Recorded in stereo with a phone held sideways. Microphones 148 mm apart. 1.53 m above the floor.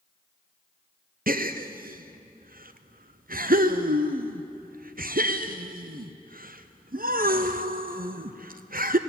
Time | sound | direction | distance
1.3 | a gasp | 75° right (ahead or behind) | 0.8 m